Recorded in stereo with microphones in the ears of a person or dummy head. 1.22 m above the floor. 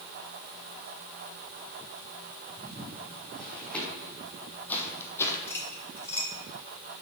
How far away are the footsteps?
About 3.5 m.